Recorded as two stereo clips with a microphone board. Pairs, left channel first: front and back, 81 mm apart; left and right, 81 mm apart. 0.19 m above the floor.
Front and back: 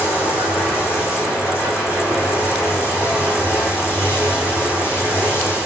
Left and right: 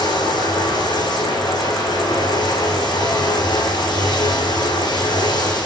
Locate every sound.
0.0 s running water: 60° left, 6.5 m